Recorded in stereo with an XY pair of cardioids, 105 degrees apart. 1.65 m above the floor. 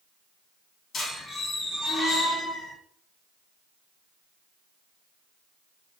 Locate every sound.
0.9 s a squeak: 50° left, 1.7 m